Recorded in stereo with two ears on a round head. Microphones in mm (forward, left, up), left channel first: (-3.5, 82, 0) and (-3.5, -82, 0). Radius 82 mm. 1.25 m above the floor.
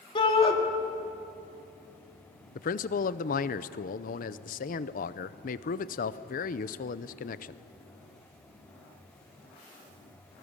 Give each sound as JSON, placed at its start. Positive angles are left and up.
{"t": 0.1, "sound": "a shout", "side_deg": 30, "distance_m": 2.0}
{"t": 2.5, "sound": "a man speaking", "side_deg": 45, "distance_m": 0.6}